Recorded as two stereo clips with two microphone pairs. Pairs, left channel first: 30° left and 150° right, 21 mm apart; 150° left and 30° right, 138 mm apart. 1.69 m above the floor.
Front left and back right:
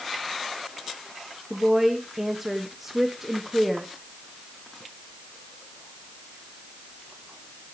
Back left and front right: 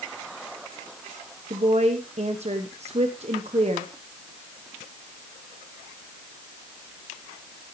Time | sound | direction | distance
1.5 | a woman speaking | 75° right | 1.2 m